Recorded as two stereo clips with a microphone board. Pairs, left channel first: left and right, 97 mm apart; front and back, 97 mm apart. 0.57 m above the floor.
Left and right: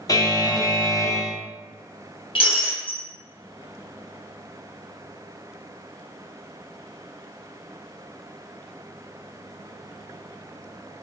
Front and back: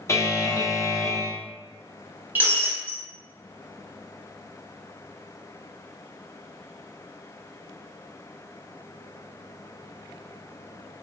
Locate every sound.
0.1 s a buzzer: 50° left, 0.5 m
2.4 s breaking glass: 110° left, 1.2 m